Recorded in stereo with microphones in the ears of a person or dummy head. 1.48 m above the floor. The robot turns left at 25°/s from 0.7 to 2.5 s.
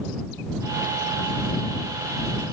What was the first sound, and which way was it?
Only background noise.